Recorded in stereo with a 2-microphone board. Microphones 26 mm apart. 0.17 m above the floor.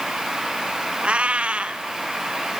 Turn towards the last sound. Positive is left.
turn(degrees=-50)  # may be behind; listen again after turning